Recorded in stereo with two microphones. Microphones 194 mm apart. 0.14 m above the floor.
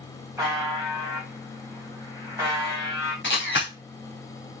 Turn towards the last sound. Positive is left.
turn(degrees=65)  # may be behind; listen again after turning